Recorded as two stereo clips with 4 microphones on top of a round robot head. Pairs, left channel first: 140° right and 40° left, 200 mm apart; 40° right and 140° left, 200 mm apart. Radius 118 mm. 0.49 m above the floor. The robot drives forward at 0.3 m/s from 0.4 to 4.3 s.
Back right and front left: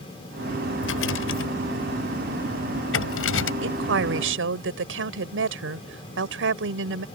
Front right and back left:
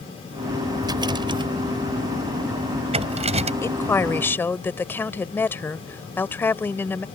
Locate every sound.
0.8 s a rattle: 150° right; by 3.5 s 160° right
3.6 s a woman speaking: 35° left; by 7.0 s 40° left